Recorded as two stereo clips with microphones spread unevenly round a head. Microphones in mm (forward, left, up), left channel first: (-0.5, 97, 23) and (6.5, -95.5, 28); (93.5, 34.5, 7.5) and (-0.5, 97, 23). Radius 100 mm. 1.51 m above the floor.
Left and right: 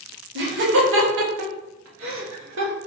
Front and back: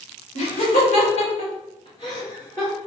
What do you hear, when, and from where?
0.3 s laughter: 60° right, 1.8 m; by 2.7 s 115° right, 2.0 m